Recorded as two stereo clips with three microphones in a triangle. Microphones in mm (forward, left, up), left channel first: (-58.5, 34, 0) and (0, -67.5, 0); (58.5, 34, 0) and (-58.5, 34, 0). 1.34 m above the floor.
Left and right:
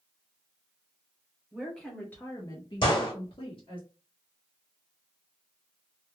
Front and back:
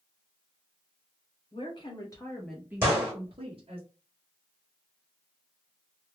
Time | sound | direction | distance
1.5 | a woman speaking | 25° left | 1.0 m
2.8 | a gunshot | 120° left | 1.4 m